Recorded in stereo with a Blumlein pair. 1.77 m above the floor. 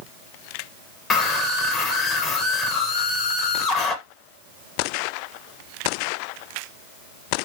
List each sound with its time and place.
1.1 s a scream: 20° left, 1.5 m